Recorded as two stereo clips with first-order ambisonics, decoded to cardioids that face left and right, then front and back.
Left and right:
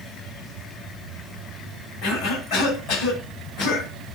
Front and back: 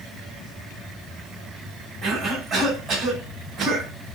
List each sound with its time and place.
2.0 s a cough: 120° left, 5 m